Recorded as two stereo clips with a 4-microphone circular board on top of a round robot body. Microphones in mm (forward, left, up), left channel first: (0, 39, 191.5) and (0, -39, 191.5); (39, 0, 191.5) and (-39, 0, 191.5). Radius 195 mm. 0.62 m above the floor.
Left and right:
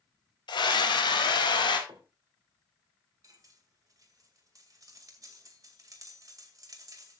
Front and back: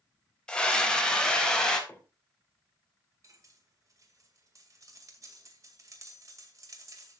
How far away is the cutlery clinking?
About 2 m.